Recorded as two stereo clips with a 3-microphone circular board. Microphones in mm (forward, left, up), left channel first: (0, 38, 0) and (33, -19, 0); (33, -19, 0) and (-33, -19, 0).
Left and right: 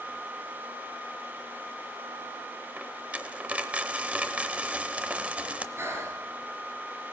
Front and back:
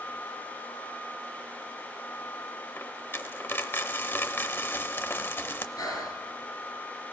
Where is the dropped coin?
5° right, 0.7 m.